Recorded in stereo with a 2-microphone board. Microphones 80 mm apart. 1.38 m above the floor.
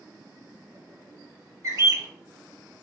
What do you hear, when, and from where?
1.6 s a bird: 45° right (ahead or behind), 1.0 m